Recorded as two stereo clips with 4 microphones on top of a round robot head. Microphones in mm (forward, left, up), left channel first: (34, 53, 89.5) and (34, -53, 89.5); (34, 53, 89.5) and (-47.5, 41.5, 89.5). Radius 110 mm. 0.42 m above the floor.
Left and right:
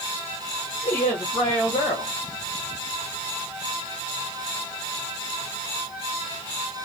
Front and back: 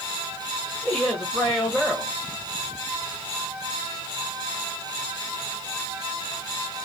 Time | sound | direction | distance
0.8 | a woman speaking | 85° left | 1.8 m